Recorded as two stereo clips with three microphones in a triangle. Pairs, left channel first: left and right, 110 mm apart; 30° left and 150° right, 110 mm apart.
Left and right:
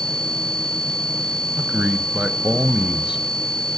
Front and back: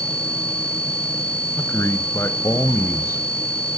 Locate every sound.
1.6 s a man speaking: 15° right, 1.3 m